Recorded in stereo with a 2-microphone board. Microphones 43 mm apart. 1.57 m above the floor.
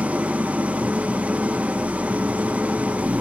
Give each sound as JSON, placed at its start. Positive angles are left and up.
{"t": 0.0, "sound": "an engine running", "side_deg": -30, "distance_m": 0.8}